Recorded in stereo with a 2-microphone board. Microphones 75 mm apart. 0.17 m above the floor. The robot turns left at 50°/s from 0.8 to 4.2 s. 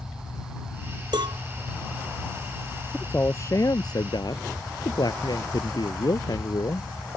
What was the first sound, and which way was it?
A cowbell, 80° right.